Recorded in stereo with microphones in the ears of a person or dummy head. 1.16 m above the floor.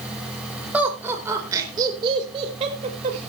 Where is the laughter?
10° right (ahead or behind), 4.5 m; by 3.3 s 40° right (ahead or behind), 5 m.